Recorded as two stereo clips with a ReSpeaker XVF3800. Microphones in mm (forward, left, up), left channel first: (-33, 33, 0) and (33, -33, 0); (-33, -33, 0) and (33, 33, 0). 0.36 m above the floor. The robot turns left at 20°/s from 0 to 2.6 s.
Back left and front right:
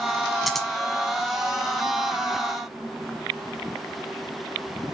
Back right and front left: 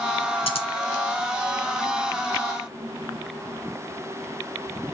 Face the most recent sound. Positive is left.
turn(degrees=-175)